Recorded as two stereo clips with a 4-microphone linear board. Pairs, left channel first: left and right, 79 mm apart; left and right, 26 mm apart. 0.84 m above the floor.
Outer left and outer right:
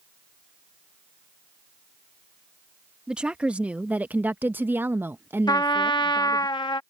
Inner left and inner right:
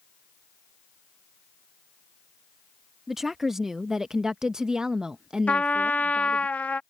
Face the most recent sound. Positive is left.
turn(degrees=70)  # may be behind; listen again after turning